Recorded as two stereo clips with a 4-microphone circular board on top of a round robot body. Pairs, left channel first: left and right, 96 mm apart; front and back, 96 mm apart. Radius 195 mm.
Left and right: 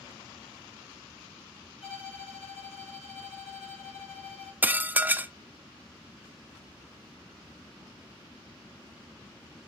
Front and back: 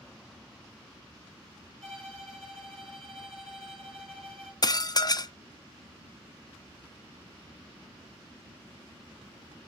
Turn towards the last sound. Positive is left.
turn(degrees=-25)